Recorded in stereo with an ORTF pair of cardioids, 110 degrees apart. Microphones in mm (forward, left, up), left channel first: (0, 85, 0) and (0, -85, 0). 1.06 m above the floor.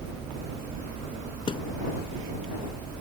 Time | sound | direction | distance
1.5 | a thud | 30° left | ?